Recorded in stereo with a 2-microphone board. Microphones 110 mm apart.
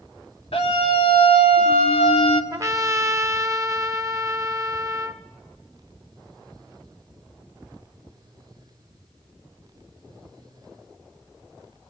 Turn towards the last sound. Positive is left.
turn(degrees=-30)  # may be behind; listen again after turning